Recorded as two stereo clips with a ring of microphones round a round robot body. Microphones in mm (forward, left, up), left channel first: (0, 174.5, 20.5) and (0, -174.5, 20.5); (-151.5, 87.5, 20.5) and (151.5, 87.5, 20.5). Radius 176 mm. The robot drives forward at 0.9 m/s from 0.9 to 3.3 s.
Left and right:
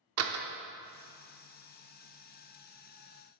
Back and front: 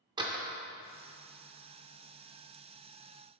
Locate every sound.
0.2 s a door slam: 70° right, 0.6 m